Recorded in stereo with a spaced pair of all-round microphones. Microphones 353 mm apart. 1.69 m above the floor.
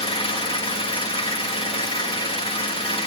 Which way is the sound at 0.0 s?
15° left (ahead or behind).